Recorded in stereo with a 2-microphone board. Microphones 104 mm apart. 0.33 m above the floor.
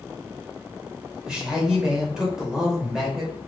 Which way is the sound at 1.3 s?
5° right (ahead or behind).